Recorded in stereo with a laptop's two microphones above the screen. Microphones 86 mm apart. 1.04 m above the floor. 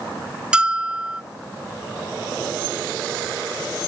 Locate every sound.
0.5 s a bell: 10° right (ahead or behind)